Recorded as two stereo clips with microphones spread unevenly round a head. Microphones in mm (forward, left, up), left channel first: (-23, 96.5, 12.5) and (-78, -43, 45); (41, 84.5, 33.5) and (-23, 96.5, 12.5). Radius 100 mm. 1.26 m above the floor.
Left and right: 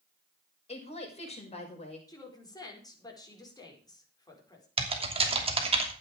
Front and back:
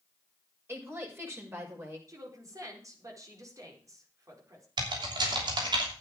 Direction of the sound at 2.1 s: 135° left.